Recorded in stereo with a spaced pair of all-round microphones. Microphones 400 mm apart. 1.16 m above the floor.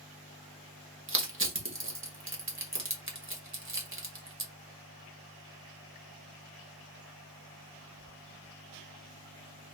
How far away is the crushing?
About 0.8 m.